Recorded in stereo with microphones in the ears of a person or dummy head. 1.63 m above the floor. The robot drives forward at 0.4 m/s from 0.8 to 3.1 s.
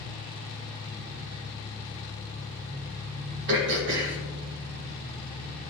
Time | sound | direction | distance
0.0 | an engine running | 20° right (ahead or behind) | 2 m
3.5 | throat clearing | 70° right (ahead or behind) | 1.7 m